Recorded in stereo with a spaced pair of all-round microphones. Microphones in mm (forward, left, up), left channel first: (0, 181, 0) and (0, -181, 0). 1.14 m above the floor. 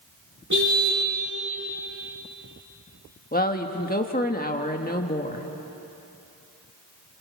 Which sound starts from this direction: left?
A woman speaking, at 3.3 s.